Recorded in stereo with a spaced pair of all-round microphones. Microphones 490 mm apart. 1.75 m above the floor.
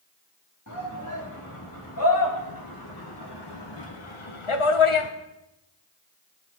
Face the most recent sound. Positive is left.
turn(degrees=70)  # may be behind; listen again after turning